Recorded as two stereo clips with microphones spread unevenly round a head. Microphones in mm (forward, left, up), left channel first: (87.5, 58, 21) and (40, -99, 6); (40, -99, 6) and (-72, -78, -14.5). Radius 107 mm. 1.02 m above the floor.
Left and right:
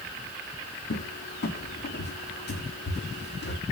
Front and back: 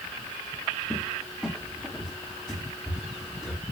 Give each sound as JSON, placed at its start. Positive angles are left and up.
{"t": 0.9, "sound": "a cupboard door", "azimuth_deg": 70, "distance_m": 0.9}